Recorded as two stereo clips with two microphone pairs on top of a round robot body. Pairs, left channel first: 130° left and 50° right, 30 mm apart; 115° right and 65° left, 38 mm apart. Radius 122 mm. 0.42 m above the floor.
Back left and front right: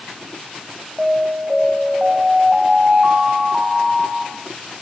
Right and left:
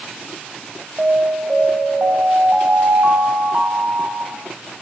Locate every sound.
1.0 s an alarm: 10° left, 5 m